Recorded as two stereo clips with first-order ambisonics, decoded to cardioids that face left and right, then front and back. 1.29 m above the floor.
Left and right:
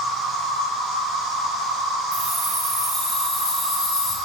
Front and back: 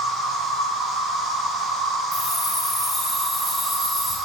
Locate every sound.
0.0 s an insect: 90° right, 1.3 m
2.1 s keys jangling: 50° right, 1.2 m